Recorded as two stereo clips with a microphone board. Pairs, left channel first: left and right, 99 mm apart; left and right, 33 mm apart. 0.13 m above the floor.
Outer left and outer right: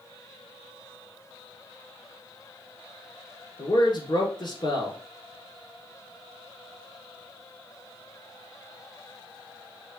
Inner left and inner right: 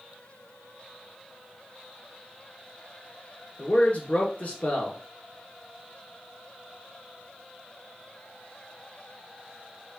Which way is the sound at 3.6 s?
50° left (ahead or behind).